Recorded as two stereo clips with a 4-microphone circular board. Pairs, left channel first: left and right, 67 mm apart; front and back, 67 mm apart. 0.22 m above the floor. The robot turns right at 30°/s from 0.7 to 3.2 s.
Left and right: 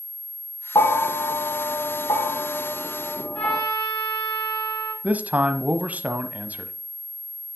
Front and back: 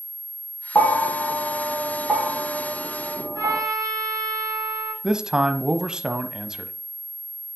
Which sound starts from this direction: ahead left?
A bell, at 0.8 s.